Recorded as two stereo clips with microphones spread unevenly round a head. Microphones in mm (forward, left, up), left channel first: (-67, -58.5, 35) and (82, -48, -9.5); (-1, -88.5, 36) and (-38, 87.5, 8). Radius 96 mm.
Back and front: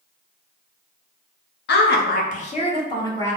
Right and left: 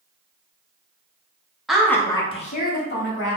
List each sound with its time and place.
1.7 s a woman speaking: 170° right, 0.7 m; by 3.4 s 105° right, 1.0 m